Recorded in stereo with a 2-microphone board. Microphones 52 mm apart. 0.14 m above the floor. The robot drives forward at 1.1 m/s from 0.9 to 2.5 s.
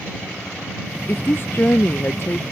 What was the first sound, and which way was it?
A woman speaking, 50° left (ahead or behind).